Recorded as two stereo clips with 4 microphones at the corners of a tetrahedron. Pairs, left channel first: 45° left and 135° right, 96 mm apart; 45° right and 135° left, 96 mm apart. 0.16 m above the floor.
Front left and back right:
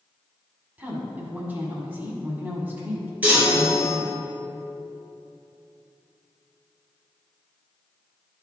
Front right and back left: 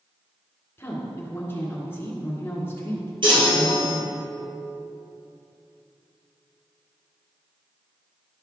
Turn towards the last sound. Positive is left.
turn(degrees=150)